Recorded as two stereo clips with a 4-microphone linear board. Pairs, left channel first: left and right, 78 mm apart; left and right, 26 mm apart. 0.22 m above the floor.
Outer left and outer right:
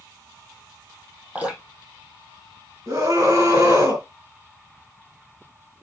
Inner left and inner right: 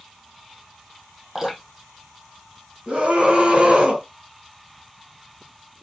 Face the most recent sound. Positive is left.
turn(degrees=-40)  # may be behind; listen again after turning